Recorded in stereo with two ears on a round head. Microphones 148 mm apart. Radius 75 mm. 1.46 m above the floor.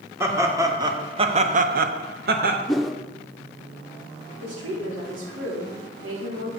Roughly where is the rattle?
No rattle in this recording.